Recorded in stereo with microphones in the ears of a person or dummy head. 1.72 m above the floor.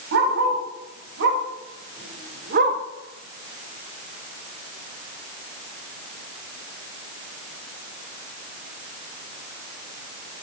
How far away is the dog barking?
About 4.5 m.